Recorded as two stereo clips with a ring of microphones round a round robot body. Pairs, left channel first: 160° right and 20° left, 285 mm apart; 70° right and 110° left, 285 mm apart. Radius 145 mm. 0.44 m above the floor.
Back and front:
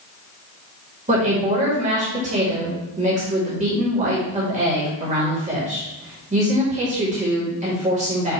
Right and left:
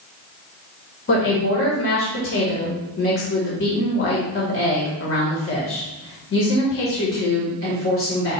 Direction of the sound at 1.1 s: 35° right.